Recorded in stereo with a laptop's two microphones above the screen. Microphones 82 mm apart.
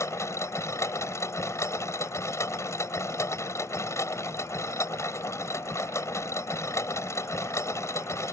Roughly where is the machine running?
Left.